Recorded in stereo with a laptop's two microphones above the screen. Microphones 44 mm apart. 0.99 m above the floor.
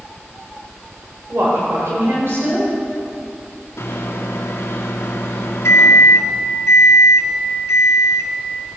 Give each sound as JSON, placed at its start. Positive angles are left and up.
{"t": 1.3, "sound": "a woman speaking", "side_deg": -65, "distance_m": 4.0}
{"t": 3.8, "sound": "a microwave", "side_deg": 90, "distance_m": 1.3}